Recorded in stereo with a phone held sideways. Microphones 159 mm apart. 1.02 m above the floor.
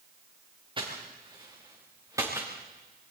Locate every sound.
0.8 s footsteps: 30° right (ahead or behind), 5 m; by 2.5 s 15° right (ahead or behind), 3.5 m